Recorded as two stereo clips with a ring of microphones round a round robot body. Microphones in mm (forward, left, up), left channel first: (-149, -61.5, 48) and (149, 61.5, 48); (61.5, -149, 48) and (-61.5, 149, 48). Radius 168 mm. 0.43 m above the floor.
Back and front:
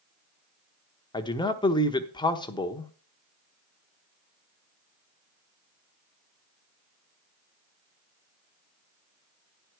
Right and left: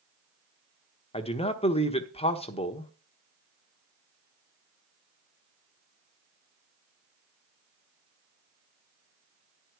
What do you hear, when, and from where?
1.1 s a man speaking: 105° right, 1.0 m